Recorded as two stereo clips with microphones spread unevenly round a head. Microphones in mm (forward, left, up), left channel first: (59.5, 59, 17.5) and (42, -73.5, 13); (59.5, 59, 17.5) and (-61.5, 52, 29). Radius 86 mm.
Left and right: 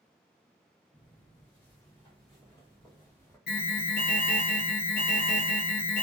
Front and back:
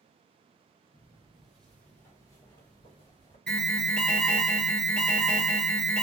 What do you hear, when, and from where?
0.9 s footsteps: 115° left, 1.9 m; by 3.4 s 25° left, 2 m
3.5 s an alarm: 90° left, 0.8 m